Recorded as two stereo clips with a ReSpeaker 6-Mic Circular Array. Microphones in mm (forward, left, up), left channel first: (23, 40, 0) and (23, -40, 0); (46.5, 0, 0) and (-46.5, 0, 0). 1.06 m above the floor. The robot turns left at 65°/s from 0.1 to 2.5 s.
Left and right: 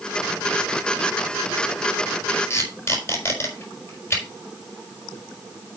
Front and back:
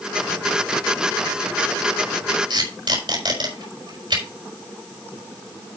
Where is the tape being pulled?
160° left, 4.5 m; by 4.2 s 145° left, 4.5 m.